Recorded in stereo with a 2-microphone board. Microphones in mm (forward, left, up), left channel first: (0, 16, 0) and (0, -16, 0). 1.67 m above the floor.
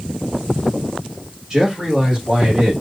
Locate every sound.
1.5 s a man speaking: 15° right (ahead or behind), 3 m; by 2.7 s 5° left (ahead or behind), 3 m